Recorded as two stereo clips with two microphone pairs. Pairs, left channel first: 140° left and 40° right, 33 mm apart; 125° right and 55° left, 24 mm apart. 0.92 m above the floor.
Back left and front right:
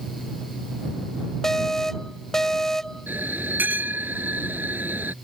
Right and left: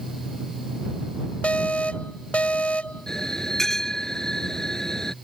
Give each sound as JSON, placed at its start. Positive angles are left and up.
{"t": 1.4, "sound": "an alarm", "azimuth_deg": -145}
{"t": 3.1, "sound": "a bell", "azimuth_deg": -55}